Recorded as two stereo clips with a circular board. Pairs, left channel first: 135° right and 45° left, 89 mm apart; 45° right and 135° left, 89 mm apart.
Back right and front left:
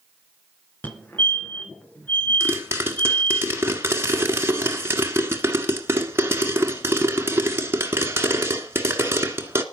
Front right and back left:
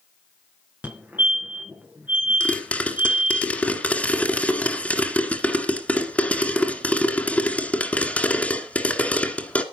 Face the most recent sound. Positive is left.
turn(degrees=15)